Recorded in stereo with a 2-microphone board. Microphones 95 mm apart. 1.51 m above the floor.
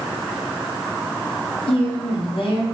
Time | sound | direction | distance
1.7 | a woman speaking | 90° left | 4 m